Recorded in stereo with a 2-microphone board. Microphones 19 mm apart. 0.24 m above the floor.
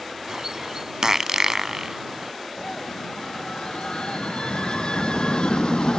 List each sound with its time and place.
0.3 s a bird: 30° right (ahead or behind)
2.6 s a scream: 55° left (ahead or behind)